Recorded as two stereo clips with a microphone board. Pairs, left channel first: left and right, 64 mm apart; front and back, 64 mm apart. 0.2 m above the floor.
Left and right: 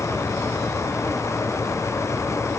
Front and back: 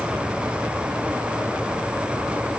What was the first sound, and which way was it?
Only background noise.